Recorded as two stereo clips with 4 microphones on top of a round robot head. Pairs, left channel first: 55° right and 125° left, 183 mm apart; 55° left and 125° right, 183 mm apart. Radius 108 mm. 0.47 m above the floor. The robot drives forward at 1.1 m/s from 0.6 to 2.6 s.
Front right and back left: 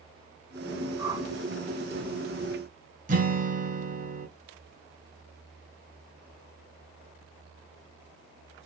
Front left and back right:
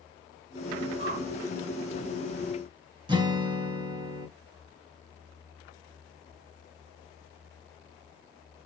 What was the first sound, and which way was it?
A whoosh, 160° right.